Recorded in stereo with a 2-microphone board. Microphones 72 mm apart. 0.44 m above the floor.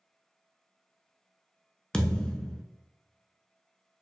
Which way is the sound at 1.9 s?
10° left (ahead or behind).